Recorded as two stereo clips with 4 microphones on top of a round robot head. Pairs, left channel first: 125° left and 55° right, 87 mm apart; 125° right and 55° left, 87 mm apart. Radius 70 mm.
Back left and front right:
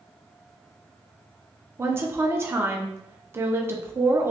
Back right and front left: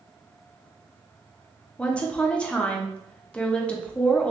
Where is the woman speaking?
65° right, 0.7 m.